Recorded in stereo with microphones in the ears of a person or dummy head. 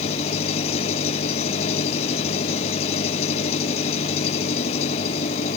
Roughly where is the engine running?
Left.